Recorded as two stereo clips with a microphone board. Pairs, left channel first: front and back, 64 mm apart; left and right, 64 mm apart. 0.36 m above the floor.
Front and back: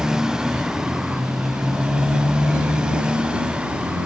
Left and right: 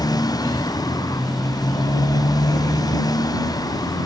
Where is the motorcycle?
95° left; by 4.1 s 105° left.